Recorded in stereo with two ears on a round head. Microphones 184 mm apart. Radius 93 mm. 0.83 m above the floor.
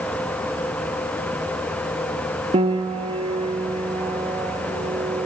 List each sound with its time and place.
2.5 s a piano: 30° right (ahead or behind), 1.1 m